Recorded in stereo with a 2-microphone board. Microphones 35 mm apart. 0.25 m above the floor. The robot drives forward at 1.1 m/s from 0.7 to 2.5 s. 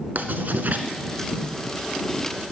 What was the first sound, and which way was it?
Writing, 60° right (ahead or behind).